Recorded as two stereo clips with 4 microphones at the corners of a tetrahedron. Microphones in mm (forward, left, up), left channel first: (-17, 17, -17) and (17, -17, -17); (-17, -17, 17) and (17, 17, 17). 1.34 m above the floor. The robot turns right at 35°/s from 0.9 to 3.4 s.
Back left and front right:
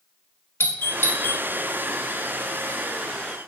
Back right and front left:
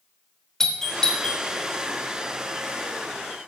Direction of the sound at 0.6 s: 145° left.